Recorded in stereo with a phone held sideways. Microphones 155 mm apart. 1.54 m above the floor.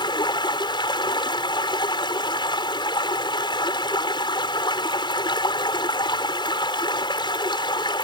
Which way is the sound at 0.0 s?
30° left (ahead or behind).